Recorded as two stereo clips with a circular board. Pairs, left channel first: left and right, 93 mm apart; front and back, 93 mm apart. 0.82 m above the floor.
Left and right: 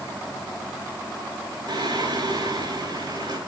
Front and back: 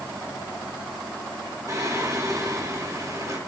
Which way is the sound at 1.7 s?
130° right.